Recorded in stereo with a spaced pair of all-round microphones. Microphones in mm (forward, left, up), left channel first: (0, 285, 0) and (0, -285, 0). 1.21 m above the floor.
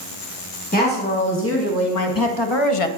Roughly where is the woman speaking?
Centre.